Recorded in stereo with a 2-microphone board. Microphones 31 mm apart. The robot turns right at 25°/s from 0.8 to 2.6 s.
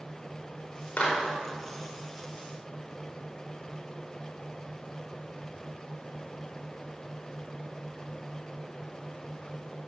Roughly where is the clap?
Left.